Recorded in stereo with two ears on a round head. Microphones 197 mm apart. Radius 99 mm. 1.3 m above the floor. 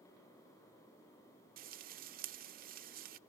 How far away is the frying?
About 0.5 m.